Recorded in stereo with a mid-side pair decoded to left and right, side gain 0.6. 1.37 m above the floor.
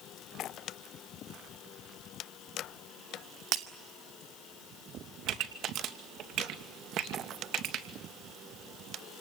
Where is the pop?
60° right, 2.5 m.